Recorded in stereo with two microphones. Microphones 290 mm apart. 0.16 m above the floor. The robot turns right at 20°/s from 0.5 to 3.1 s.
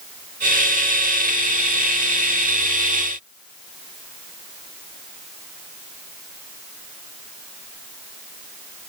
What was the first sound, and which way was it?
Only background noise.